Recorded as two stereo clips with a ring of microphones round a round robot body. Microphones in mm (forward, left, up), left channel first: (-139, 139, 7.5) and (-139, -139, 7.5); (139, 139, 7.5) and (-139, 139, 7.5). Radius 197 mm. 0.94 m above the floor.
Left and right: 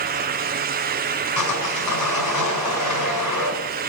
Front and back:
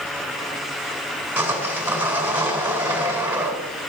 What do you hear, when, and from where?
1.4 s sawing: 100° left, 4 m